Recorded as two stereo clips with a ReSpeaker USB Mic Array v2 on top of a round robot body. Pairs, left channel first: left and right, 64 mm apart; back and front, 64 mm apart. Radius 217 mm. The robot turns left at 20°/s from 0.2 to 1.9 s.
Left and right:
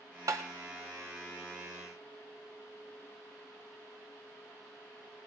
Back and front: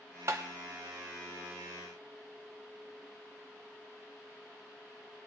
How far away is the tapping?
About 0.6 m.